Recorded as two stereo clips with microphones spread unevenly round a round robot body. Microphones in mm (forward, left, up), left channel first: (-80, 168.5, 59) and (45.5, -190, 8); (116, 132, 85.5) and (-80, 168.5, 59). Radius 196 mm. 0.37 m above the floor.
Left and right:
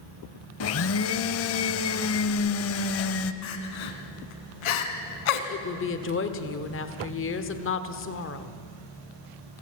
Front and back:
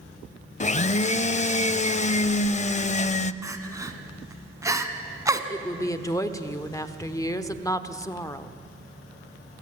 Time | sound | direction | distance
0.6 | a blender | 50° left | 0.6 m
3.4 | crying | 95° left | 1.7 m
5.5 | a woman speaking | 65° left | 1.3 m